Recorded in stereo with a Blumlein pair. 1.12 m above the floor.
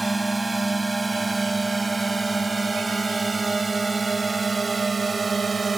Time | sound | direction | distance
0.0 | a drone | 5° right | ?